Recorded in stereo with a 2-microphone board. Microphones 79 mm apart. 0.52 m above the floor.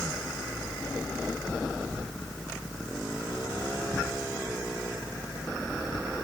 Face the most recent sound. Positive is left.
No sound to turn to.